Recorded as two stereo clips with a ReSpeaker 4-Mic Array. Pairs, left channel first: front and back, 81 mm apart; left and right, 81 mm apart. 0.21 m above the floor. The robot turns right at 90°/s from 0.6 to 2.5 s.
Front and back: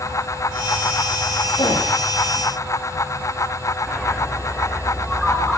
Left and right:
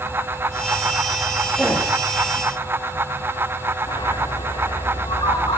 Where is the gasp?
15° right, 8.5 m; by 1.9 s 15° left, 8.5 m.